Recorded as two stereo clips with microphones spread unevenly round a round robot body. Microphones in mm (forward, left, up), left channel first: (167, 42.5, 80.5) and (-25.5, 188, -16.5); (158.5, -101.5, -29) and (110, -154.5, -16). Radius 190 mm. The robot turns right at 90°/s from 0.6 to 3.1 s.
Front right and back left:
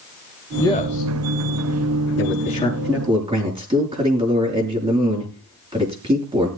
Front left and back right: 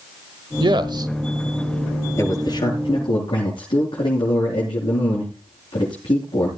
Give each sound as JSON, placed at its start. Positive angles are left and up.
{"t": 0.6, "sound": "a man speaking", "azimuth_deg": -130, "distance_m": 1.4}
{"t": 2.2, "sound": "a man speaking", "azimuth_deg": -10, "distance_m": 7.5}